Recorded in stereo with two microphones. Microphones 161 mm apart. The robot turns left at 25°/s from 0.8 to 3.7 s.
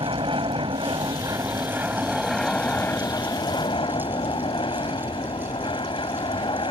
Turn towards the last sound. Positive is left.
turn(degrees=145)